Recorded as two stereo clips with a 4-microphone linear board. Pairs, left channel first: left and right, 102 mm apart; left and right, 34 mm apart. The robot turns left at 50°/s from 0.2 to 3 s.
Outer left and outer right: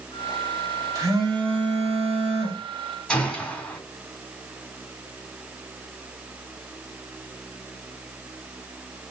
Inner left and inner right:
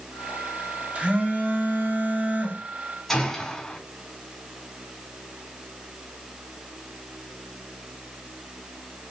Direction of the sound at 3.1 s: 10° left (ahead or behind).